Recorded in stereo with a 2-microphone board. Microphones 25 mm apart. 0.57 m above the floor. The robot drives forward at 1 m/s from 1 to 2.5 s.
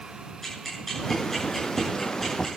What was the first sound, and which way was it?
Ticking, 15° left (ahead or behind).